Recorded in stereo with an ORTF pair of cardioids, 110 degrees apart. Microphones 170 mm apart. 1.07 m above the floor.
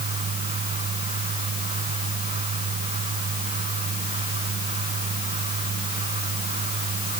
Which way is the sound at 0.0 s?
40° right.